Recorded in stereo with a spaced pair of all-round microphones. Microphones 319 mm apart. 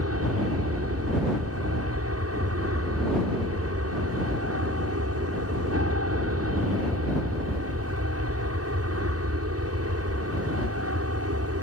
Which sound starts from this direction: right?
An aircraft, at 0.0 s.